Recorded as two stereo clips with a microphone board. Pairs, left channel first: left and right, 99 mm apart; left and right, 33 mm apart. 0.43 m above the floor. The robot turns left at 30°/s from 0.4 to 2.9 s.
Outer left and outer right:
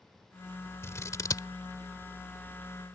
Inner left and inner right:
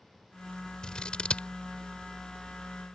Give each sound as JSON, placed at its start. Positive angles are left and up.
{"t": 0.8, "sound": "scissors", "side_deg": 25}